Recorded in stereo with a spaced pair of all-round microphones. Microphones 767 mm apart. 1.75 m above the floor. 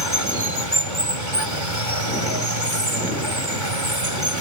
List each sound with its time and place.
0.0 s running water: 75° right (ahead or behind)